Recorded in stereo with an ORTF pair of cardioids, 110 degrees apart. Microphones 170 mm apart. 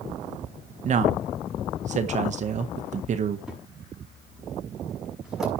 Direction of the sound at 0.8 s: 45° right.